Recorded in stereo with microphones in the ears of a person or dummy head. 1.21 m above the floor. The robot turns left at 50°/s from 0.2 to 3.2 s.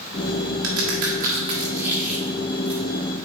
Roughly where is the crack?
Right.